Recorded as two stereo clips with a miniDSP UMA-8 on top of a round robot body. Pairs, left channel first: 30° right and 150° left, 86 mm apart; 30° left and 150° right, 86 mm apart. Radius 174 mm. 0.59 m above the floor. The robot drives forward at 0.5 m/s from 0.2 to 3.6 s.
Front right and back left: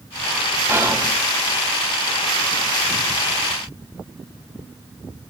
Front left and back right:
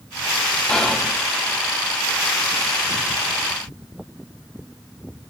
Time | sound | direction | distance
0.7 | whispering | 105° left | 0.8 m